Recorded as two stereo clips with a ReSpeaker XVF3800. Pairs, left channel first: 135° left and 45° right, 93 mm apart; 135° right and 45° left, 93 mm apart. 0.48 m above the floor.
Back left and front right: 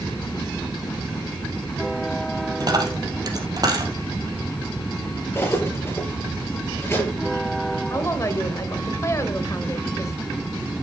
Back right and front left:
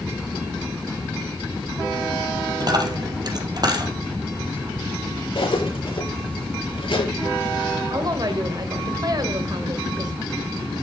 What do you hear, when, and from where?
2.6 s a dropped coin: straight ahead, 2.5 m
5.3 s cutlery clinking: 160° right, 5.5 m
7.9 s a woman speaking: 80° left, 2.0 m